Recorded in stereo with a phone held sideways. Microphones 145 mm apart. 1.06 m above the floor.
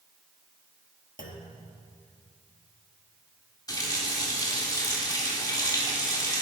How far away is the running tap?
About 1.5 m.